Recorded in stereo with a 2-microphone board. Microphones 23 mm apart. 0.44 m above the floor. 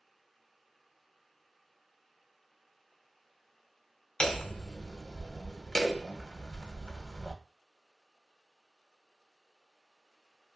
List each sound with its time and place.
4.2 s hammering: 30° left (ahead or behind), 0.5 m